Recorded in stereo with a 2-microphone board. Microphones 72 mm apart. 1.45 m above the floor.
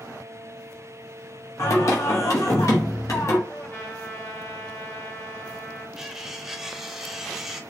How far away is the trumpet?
About 1.1 m.